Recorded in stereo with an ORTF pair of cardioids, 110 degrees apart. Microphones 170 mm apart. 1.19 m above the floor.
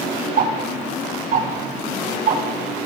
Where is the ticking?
70° right, 2.5 m.